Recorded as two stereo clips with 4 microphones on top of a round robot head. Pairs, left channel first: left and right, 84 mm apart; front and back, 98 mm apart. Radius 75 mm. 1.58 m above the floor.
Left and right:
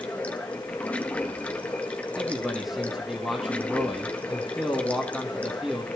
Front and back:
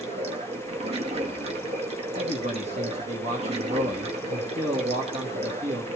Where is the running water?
165° left, 1.9 m.